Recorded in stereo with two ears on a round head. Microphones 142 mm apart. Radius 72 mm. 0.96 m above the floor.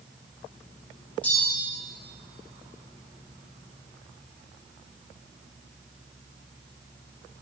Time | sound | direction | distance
1.2 | a bell | 10° left (ahead or behind) | 6 m